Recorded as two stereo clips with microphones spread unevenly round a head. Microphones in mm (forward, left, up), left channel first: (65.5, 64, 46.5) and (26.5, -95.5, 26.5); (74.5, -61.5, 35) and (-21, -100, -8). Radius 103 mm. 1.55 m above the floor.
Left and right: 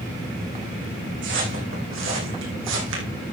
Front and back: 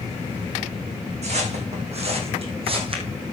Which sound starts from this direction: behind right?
Footsteps, at 1.2 s.